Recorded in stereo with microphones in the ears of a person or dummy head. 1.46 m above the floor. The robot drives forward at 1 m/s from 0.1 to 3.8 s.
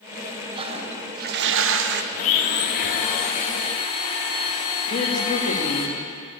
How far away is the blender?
About 1.3 m.